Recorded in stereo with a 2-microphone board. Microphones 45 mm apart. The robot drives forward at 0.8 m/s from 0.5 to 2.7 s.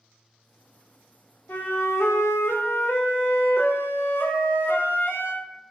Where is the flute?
40° left (ahead or behind), 0.7 m; by 5.5 s 45° left (ahead or behind), 0.6 m.